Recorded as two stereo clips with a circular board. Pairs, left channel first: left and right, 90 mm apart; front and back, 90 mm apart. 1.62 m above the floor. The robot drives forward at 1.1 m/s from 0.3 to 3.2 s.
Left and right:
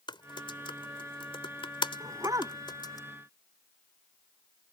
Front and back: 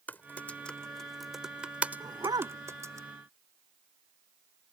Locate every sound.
0.1 s typing on a keyboard: 70° left; by 3.0 s 130° left
2.0 s a dog barking: 135° right; by 2.6 s 140° right